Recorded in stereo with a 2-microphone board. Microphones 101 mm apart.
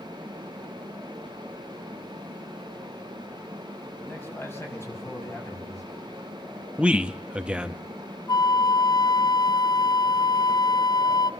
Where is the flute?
40° left (ahead or behind), 0.5 m.